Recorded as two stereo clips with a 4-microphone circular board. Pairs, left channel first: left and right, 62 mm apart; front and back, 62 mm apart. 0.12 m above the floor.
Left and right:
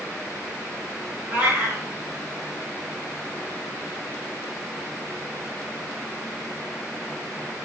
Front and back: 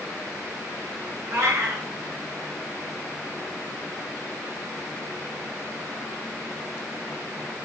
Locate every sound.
1.3 s a cat meowing: 140° right, 4 m